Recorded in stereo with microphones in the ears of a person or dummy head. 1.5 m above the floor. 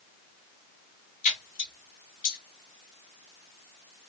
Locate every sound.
1.2 s a splash: 35° left (ahead or behind), 1.0 m